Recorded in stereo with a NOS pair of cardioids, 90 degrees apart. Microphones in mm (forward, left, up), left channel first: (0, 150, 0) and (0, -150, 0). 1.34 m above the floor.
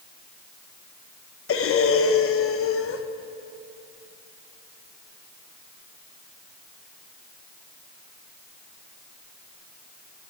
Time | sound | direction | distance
1.5 | breathing | 45° left | 1.1 m